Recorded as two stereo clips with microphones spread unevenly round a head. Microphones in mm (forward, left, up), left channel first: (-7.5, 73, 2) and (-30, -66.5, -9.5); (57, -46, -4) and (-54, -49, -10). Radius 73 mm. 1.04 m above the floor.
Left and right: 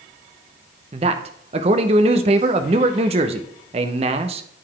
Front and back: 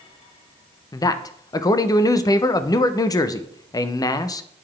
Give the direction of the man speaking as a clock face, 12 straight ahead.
2 o'clock.